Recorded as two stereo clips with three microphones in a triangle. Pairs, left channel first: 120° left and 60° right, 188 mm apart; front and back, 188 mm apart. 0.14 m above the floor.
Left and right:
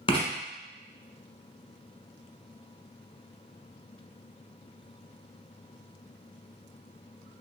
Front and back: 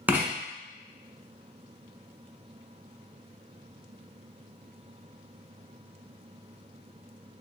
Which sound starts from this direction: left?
Writing, at 0.1 s.